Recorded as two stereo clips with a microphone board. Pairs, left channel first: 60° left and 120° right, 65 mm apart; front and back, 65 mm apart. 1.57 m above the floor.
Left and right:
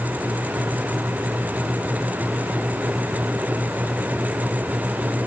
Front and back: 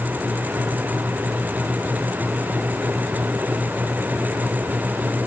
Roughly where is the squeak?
I don't hear a squeak.